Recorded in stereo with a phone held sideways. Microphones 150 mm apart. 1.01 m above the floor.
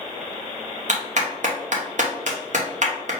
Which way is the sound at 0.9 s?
55° right (ahead or behind).